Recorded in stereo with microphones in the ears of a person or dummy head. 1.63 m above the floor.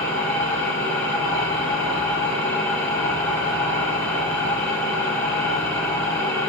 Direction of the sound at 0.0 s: 10° left (ahead or behind).